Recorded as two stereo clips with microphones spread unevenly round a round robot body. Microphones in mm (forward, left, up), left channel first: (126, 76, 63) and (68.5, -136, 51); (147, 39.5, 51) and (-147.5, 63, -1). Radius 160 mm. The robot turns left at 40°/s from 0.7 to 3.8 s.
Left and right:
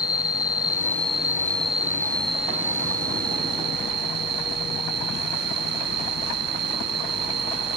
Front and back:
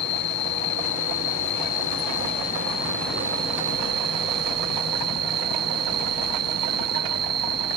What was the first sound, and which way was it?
An insect, straight ahead.